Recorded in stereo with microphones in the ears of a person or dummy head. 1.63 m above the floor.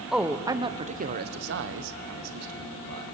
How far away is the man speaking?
About 1.1 m.